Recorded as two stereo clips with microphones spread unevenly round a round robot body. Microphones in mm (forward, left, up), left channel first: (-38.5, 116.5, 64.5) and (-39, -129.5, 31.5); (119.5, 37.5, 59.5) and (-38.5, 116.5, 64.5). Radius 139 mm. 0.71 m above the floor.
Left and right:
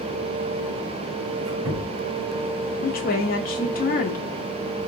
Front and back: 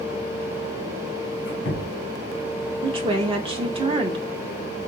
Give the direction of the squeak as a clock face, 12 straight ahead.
2 o'clock.